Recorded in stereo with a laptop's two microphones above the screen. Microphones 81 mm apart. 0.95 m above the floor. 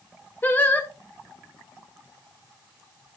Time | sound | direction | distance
0.4 | singing | 25° left (ahead or behind) | 0.9 m